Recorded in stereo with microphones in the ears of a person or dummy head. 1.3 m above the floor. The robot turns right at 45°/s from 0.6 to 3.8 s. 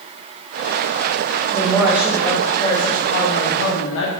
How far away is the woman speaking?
About 1.4 m.